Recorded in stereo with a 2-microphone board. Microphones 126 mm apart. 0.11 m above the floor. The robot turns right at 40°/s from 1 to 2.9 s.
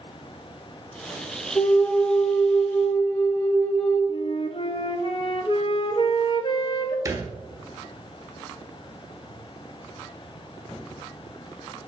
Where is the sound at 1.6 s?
20° left (ahead or behind), 1.0 m; by 4.0 s 15° left (ahead or behind), 1.0 m.